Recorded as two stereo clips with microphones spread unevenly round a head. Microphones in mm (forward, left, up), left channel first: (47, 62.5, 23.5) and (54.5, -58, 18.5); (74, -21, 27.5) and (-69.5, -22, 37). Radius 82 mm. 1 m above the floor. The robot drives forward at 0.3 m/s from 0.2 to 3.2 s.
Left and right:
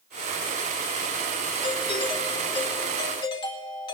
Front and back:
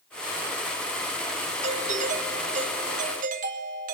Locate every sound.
1.6 s a doorbell: 145° left, 1.7 m; by 4.0 s 150° left, 2 m